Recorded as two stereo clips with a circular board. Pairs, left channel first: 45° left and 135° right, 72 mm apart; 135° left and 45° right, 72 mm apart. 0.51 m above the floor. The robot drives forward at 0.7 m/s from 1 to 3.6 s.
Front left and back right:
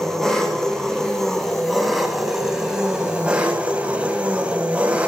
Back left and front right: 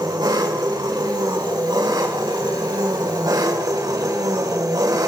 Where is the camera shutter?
I don't hear a camera shutter.